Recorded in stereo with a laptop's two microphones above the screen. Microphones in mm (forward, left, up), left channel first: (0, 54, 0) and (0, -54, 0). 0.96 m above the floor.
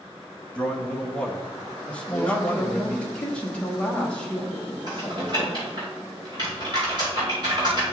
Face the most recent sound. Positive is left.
turn(degrees=-40)  # may be behind; listen again after turning